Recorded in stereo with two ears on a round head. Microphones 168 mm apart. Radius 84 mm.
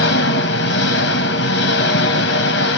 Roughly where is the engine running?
Left.